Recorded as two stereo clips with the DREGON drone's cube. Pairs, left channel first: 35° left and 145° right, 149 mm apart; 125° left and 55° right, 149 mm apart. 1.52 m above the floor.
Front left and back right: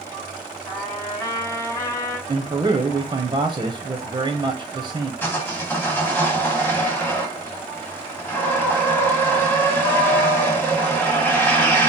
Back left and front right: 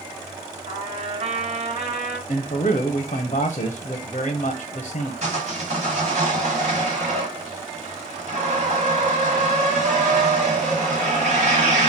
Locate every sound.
0.7 s a trumpet: 30° right, 1.5 m
2.3 s a man speaking: 160° left, 0.5 m
5.2 s sawing: 40° right, 1.4 m